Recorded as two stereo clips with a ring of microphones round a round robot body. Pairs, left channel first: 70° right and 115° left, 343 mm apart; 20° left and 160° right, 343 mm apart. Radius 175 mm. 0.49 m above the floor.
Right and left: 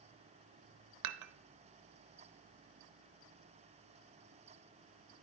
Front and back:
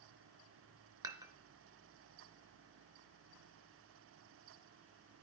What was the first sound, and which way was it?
Dishes clattering, 125° left.